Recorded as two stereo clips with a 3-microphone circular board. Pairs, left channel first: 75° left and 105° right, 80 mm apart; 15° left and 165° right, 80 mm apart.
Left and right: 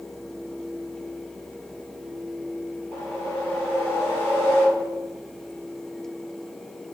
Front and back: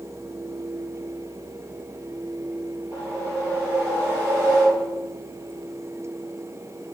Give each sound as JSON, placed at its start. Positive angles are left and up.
{"t": 2.9, "sound": "a whoosh", "azimuth_deg": 135, "distance_m": 2.0}